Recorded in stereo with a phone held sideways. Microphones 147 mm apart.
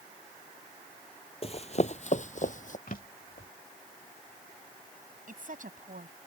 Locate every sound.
1.4 s running footsteps: 40° left (ahead or behind); by 2.8 s 60° left (ahead or behind)
2.9 s a drawer: 70° left (ahead or behind)
5.3 s a woman speaking: 65° right (ahead or behind)